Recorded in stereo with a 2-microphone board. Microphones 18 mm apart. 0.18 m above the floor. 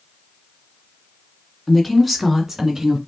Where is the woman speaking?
10° left (ahead or behind), 1.7 m; by 3.0 s 30° right (ahead or behind), 1.9 m.